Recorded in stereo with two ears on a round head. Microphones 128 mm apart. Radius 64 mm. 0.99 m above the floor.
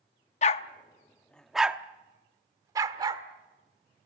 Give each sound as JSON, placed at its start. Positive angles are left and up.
{"t": 0.4, "sound": "a dog barking", "side_deg": 50, "distance_m": 0.6}